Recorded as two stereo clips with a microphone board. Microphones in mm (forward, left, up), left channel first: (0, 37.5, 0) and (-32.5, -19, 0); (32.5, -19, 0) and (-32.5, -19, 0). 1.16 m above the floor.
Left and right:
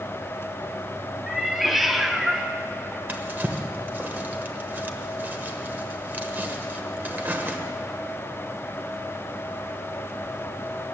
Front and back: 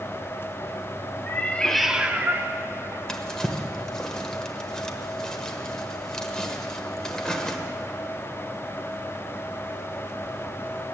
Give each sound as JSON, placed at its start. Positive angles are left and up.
{"t": 1.3, "sound": "a cat meowing", "azimuth_deg": -30, "distance_m": 0.8}
{"t": 3.1, "sound": "a drawer", "azimuth_deg": -70, "distance_m": 1.0}